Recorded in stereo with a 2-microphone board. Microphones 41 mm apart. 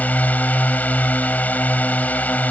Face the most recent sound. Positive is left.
turn(degrees=40)  # may be behind; listen again after turning